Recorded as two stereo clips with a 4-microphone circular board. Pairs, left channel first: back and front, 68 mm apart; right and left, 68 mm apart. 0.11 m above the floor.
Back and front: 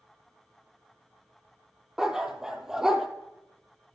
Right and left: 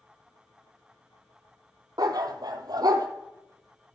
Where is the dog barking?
80° left, 1.4 m.